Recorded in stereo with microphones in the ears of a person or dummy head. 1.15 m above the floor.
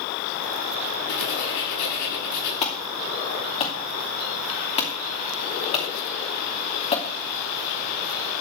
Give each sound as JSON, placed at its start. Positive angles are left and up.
{"t": 1.1, "sound": "writing", "side_deg": 65, "distance_m": 8.0}
{"t": 2.6, "sound": "an alarm", "side_deg": 30, "distance_m": 2.5}